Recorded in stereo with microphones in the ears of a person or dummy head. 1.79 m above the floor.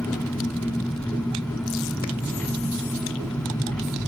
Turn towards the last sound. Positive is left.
turn(degrees=0)  # may be behind; listen again after turning